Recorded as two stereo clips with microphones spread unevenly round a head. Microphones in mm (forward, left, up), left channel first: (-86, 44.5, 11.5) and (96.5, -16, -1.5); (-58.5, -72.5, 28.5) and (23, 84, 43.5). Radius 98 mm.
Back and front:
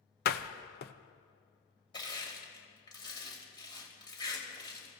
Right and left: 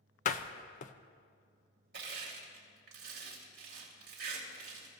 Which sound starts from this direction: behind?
A door slam, at 0.2 s.